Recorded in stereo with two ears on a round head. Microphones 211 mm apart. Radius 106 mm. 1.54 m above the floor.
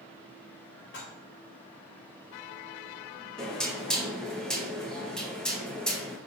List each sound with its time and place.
0.9 s dishes clattering: 55° left (ahead or behind), 4 m
3.4 s knocking: 5° left (ahead or behind), 2 m